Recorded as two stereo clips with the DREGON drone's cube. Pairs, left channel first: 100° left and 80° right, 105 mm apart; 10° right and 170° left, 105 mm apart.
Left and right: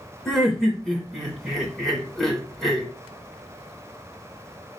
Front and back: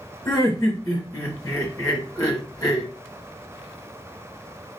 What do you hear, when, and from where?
0.2 s laughter: 15° left, 1.2 m